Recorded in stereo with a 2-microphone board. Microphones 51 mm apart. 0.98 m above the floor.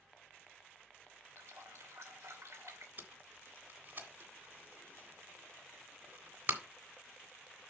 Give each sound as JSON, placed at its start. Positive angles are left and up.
{"t": 1.4, "sound": "a running tap", "side_deg": -90, "distance_m": 2.5}
{"t": 3.0, "sound": "tape being pulled", "side_deg": -45, "distance_m": 1.9}